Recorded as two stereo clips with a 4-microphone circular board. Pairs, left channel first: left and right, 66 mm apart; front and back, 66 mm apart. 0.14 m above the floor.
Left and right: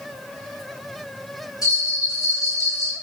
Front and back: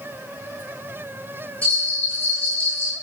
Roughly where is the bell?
Left.